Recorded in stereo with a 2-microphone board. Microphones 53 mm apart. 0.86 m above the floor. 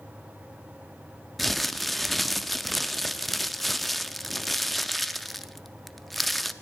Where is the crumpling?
5° left (ahead or behind), 0.6 m.